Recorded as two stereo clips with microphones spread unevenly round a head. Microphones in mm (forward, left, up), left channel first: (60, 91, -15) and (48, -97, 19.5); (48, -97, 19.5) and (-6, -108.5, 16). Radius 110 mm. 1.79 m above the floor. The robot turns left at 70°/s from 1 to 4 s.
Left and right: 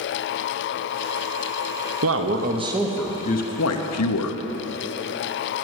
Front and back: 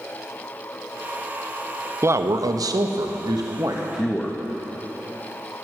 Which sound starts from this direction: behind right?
A man speaking, at 2.0 s.